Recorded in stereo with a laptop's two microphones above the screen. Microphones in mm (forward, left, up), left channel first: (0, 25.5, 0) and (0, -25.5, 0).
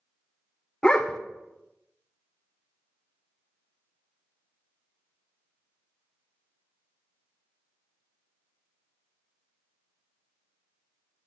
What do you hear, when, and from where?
0.8 s a dog barking: 20° left (ahead or behind), 0.7 m